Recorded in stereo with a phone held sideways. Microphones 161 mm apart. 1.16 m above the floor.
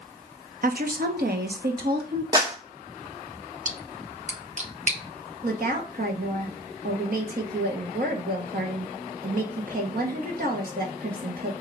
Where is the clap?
25° right (ahead or behind), 1.1 m.